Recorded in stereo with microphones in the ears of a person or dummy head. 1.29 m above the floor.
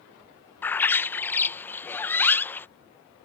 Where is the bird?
15° left (ahead or behind).